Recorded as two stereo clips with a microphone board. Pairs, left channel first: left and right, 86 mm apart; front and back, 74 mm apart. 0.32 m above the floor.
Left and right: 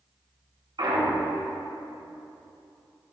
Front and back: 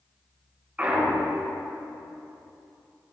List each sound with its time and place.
0.8 s a clunk: 110° right, 2.5 m